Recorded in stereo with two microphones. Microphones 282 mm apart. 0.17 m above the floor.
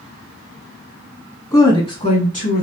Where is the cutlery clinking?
I don't hear cutlery clinking.